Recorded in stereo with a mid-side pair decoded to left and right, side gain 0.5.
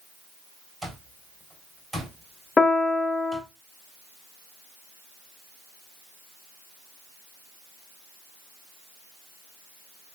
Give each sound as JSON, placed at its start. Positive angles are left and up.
{"t": 0.8, "sound": "an alarm clock", "azimuth_deg": -10, "distance_m": 3.5}
{"t": 2.6, "sound": "a piano", "azimuth_deg": 30, "distance_m": 0.7}